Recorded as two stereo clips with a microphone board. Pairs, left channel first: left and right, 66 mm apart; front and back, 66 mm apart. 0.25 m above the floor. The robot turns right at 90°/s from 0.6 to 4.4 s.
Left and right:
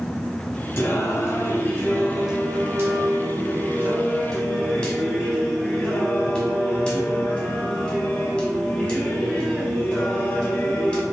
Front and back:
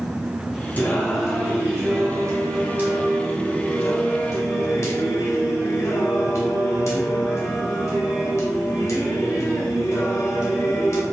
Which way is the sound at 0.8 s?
50° left.